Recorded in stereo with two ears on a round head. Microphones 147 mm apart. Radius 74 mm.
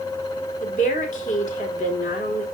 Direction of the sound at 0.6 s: 50° left (ahead or behind).